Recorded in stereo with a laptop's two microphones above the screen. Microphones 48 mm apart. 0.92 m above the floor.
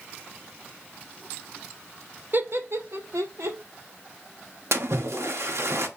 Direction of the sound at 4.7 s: 70° right (ahead or behind).